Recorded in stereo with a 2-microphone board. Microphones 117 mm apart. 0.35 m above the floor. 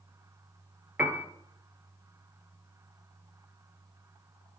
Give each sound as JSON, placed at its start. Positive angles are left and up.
{"t": 1.0, "sound": "a piano", "side_deg": -15, "distance_m": 1.1}